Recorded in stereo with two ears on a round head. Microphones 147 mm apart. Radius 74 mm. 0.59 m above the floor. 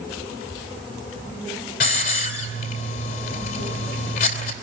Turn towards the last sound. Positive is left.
turn(degrees=55)  # may be behind; listen again after turning